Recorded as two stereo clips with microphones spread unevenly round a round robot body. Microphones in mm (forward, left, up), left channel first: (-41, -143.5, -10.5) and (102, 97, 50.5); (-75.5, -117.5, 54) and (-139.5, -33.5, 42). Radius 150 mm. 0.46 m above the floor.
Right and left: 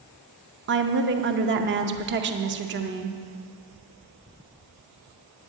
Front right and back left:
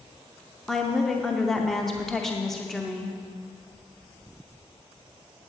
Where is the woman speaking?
45° left, 0.7 m.